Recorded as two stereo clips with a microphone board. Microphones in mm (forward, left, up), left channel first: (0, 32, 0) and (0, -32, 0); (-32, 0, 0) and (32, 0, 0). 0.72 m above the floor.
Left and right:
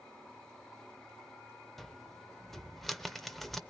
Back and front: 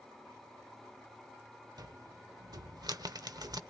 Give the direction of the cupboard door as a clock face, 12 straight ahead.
12 o'clock.